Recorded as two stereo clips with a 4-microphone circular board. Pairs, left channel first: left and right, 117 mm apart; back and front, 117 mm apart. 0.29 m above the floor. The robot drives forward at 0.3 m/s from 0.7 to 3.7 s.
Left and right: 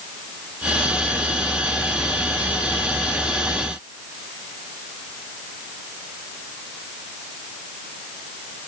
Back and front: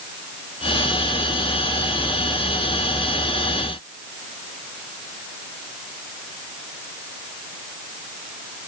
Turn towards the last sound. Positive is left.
No sound to turn to.